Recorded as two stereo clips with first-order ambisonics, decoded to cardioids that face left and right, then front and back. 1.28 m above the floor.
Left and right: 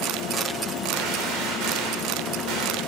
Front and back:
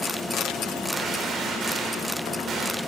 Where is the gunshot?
120° right, 3.5 m.